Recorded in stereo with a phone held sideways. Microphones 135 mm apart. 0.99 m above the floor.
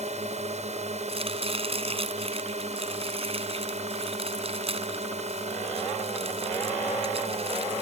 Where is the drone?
55° right (ahead or behind).